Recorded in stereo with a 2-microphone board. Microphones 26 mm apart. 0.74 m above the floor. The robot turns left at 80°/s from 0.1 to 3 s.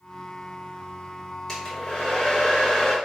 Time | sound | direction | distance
1.5 | a hair dryer | 135° left | 1.3 m